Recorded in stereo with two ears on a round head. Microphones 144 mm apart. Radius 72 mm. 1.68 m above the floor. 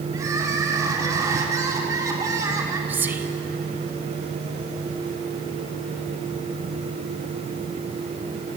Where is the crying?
20° right (ahead or behind), 3.5 m.